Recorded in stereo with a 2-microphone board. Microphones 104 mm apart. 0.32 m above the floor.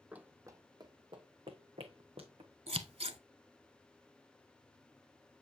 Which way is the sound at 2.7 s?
85° right.